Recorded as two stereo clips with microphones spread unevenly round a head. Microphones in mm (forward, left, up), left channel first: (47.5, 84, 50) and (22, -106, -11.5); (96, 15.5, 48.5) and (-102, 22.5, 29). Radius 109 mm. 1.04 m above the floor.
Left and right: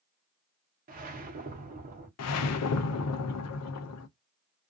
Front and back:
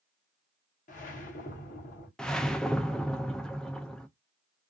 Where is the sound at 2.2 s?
85° left, 0.5 m.